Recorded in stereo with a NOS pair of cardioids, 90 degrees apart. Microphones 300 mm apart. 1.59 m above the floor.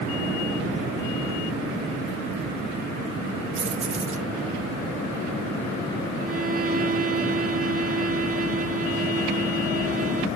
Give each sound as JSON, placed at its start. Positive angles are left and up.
{"t": 3.5, "sound": "keys jangling", "azimuth_deg": -45}
{"t": 6.2, "sound": "a violin", "azimuth_deg": -30}